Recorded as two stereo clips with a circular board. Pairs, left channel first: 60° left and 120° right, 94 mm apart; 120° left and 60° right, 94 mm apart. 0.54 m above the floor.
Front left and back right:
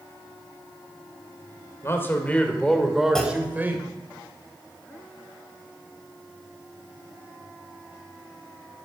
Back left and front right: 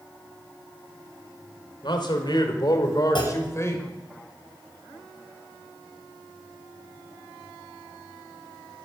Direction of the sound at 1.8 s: 115° left.